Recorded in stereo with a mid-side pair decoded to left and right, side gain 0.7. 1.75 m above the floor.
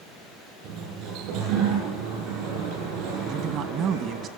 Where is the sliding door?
65° right, 9.5 m.